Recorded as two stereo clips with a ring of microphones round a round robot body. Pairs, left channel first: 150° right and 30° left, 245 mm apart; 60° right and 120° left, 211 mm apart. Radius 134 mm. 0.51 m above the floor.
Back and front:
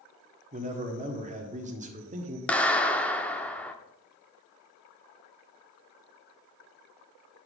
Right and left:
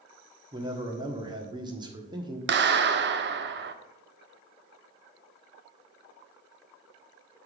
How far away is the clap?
About 0.7 m.